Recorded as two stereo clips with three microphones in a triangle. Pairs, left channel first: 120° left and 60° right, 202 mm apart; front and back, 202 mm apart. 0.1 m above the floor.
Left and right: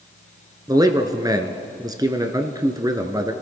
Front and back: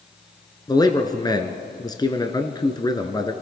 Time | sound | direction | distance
0.7 | a man speaking | 25° right | 1.1 m